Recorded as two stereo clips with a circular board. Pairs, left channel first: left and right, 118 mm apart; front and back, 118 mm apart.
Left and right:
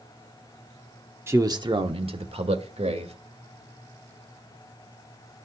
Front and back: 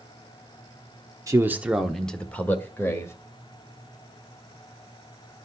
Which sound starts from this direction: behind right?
A man speaking, at 1.3 s.